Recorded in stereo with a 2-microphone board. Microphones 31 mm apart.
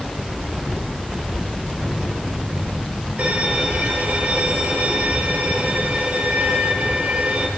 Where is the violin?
55° right (ahead or behind), 4 m.